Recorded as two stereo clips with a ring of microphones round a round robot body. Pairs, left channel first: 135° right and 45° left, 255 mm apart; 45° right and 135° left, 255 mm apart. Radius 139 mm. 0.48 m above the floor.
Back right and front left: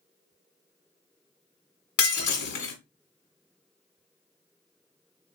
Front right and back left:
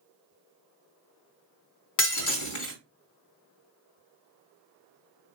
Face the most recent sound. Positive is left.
turn(degrees=-85)